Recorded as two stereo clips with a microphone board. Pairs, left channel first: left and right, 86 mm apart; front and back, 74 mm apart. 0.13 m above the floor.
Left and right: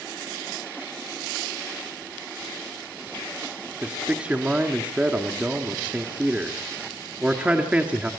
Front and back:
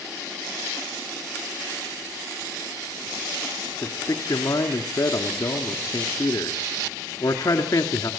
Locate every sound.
3.8 s a man speaking: 20° right, 1.7 m